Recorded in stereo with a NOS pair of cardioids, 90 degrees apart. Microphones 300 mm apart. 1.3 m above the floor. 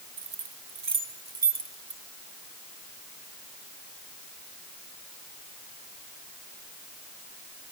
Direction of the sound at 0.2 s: 50° right.